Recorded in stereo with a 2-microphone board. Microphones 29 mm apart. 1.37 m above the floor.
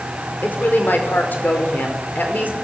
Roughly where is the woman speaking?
Left.